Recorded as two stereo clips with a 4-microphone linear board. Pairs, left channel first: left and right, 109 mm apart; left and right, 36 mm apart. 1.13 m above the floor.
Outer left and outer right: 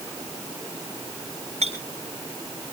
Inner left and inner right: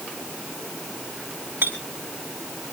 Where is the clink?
85° right, 5.5 m.